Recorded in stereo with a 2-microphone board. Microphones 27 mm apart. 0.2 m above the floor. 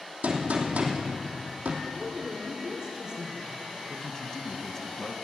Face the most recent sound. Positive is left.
turn(degrees=25)  # may be behind; listen again after turning